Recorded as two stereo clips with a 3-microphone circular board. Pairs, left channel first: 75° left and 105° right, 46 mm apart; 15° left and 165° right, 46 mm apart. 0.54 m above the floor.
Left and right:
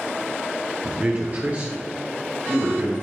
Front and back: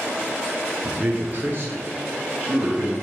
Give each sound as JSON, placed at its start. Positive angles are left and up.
{"t": 0.8, "sound": "a man speaking", "azimuth_deg": -135, "distance_m": 0.8}